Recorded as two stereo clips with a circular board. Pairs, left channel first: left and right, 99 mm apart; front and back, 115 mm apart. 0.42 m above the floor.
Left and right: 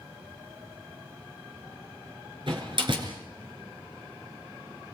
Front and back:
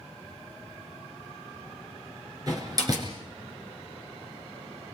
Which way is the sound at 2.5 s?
125° right.